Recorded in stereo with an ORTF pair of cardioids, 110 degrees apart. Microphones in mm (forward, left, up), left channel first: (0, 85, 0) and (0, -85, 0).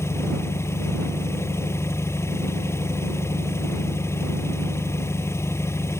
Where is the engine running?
15° left.